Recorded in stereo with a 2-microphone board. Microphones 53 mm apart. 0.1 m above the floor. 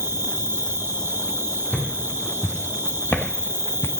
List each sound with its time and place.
0.0 s an insect: 50° right (ahead or behind), 1.8 m
1.7 s footsteps: 35° left (ahead or behind), 3.5 m; by 3.9 s 55° left (ahead or behind), 0.9 m